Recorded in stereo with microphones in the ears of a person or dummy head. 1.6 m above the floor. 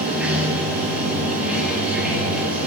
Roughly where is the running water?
Centre.